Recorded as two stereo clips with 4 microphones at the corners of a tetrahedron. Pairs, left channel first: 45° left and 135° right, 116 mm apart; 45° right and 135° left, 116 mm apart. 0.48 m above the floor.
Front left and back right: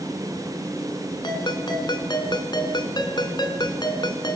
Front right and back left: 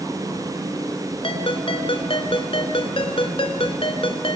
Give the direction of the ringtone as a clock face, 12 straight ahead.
12 o'clock.